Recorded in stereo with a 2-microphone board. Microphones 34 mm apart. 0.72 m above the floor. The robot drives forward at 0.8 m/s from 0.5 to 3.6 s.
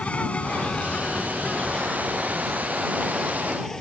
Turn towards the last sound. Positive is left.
turn(degrees=15)  # may be behind; listen again after turning